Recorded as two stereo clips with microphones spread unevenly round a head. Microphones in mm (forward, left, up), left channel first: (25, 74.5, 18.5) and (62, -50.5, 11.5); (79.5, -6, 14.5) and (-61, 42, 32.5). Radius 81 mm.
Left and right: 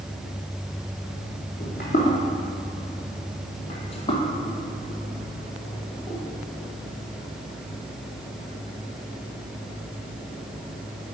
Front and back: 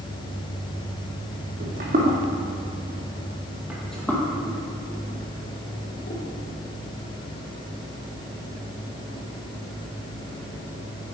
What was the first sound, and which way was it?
Footsteps, 135° left.